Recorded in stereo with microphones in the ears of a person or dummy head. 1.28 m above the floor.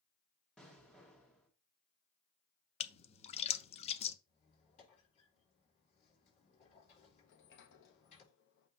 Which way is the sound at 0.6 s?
5° left (ahead or behind).